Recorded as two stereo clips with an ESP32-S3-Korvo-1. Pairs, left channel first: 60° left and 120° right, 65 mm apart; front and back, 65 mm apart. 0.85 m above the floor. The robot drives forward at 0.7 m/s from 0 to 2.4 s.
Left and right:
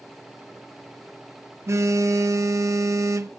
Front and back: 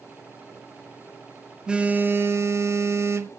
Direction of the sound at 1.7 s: 105° right.